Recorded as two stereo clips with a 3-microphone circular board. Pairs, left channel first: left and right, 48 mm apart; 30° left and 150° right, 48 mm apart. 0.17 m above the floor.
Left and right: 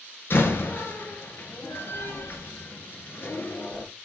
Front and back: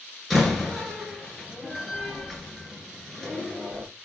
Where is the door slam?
120° left, 2.5 m.